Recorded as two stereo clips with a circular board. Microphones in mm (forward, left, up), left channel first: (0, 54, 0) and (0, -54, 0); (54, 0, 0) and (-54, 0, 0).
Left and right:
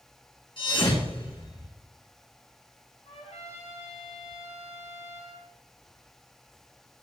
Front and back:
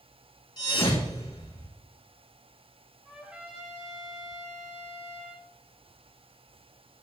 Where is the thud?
50° left, 5 m.